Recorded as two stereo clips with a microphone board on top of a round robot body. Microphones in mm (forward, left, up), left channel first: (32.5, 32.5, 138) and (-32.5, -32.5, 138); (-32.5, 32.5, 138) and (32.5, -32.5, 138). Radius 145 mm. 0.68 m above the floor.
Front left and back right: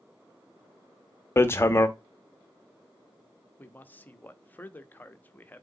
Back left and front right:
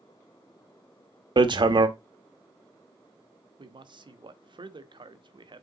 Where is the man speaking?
25° right, 1.0 m.